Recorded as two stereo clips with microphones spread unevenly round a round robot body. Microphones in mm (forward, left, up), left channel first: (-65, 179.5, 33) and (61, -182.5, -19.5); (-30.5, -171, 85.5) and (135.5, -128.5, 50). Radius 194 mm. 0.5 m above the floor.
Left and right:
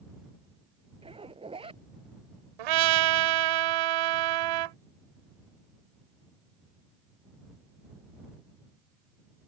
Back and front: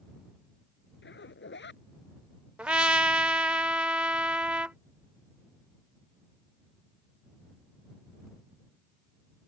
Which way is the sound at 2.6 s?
70° right.